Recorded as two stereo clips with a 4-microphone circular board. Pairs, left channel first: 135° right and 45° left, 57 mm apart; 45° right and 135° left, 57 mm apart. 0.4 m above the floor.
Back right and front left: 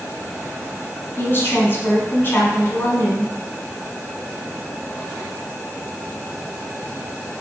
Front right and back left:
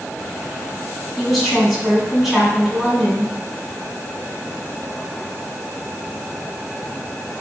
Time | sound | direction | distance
1.2 | a woman speaking | 140° right | 1.7 m